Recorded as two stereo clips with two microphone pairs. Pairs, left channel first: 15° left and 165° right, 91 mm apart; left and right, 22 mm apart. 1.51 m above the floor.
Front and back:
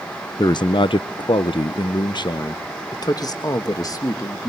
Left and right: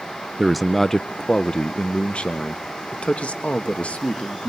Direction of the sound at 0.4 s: 15° right.